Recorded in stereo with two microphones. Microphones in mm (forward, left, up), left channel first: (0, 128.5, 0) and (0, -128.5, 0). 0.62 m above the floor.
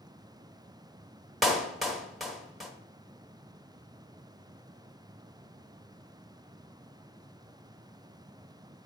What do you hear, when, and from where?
1.4 s a clap: centre (ahead or behind), 1.0 m